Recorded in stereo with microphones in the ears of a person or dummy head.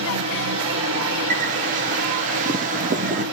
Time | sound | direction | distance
0.0 | a fan | 55° right (ahead or behind) | 2.5 m
1.3 | a bird | 35° right (ahead or behind) | 0.7 m